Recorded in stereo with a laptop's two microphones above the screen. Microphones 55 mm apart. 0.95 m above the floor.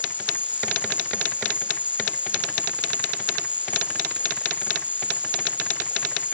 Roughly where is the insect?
Right.